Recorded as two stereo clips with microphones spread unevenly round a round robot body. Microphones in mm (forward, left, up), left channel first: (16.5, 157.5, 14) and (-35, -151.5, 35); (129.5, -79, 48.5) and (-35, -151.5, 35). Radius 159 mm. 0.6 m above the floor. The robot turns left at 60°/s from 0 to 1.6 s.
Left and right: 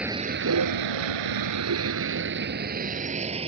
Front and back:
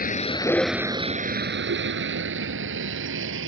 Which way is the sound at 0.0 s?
10° right.